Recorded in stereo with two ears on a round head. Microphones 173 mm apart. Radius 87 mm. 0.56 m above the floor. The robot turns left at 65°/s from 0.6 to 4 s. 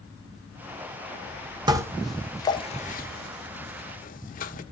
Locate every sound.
1.7 s dishes clattering: 25° right (ahead or behind), 1.0 m; by 4.6 s 45° left (ahead or behind), 1.0 m